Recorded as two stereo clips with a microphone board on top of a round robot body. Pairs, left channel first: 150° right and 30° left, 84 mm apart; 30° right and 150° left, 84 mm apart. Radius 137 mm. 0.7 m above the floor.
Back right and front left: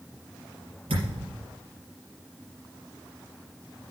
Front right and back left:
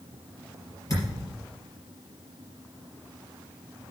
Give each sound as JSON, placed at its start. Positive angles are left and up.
{"t": 0.9, "sound": "a thud", "azimuth_deg": 25, "distance_m": 4.5}